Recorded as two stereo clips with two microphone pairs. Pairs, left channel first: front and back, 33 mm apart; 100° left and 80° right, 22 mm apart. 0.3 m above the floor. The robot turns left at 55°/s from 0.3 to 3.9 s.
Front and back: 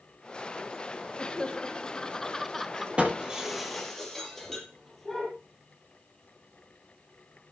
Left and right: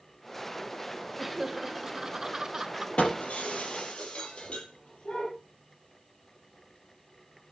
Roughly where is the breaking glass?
Behind left.